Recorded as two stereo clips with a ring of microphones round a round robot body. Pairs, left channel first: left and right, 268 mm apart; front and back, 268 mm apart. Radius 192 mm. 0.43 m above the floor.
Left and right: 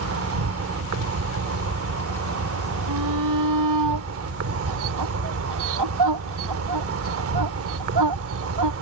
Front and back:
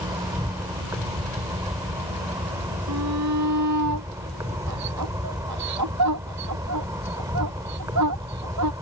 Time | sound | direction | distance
0.0 | an insect | 105° right | ?
2.9 | a shout | 130° right | ?